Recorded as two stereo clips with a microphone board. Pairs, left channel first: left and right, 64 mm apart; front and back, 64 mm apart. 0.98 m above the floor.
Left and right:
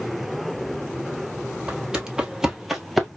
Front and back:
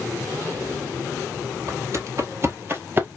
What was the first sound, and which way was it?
Footsteps, 160° right.